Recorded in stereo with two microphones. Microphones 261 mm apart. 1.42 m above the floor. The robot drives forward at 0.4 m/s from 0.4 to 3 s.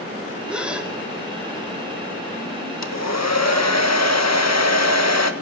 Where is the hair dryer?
85° left, 1.6 m.